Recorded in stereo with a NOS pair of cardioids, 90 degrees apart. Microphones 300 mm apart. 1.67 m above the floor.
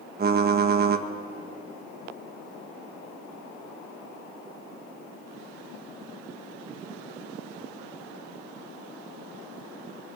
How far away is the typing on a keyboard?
About 1.7 m.